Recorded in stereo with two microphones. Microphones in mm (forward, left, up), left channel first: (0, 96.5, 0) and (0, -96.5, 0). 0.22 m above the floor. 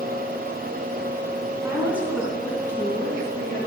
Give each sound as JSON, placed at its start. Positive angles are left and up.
{"t": 1.6, "sound": "a woman speaking", "side_deg": -15, "distance_m": 2.0}